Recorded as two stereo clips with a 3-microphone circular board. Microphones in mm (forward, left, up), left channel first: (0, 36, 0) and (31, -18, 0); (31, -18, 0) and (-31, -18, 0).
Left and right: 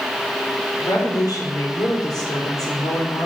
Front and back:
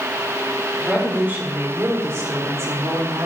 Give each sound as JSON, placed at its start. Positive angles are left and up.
{"t": 0.8, "sound": "a woman speaking", "azimuth_deg": 115, "distance_m": 4.5}